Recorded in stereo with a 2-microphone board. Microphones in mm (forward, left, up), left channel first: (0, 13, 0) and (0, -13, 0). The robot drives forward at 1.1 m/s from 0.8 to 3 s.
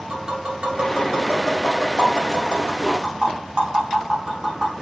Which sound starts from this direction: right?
Tapping, at 0.1 s.